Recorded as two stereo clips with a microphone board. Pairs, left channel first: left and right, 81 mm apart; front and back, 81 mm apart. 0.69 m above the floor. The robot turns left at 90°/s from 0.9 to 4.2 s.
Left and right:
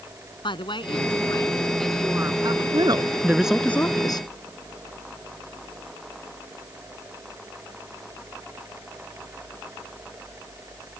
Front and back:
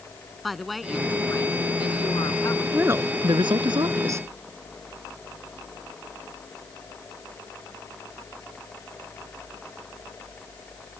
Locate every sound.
0.4 s a woman speaking: 90° left; by 2.6 s 65° right
2.7 s a woman speaking: 105° right; by 4.3 s 120° left